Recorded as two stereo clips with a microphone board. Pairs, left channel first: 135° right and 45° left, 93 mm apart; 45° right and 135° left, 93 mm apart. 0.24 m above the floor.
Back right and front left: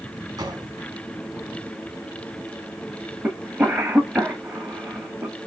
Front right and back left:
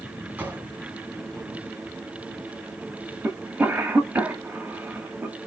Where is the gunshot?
70° left, 1.6 m.